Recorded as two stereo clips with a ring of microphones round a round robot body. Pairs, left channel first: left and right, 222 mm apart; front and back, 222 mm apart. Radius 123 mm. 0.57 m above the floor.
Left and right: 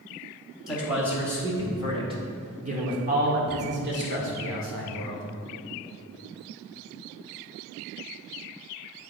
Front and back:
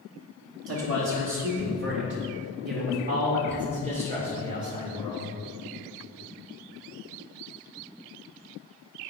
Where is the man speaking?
175° right, 2 m; by 5.3 s 105° right, 2.5 m.